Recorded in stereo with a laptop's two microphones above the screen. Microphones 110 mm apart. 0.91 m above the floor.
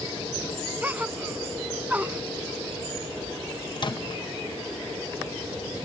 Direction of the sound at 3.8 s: 45° left (ahead or behind).